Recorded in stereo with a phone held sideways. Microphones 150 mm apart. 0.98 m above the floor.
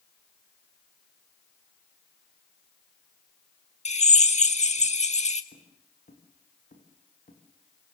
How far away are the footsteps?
About 7 m.